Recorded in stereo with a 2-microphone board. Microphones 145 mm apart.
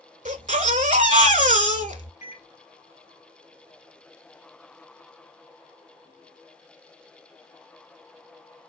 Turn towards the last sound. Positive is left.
turn(degrees=55)  # may be behind; listen again after turning